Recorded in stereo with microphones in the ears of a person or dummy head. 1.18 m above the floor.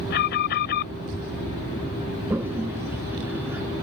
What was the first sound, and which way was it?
An alarm, 55° left (ahead or behind).